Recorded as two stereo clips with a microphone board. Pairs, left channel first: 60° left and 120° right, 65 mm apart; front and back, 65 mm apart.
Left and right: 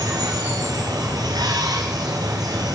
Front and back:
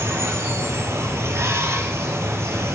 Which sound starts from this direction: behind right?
Running water, at 0.0 s.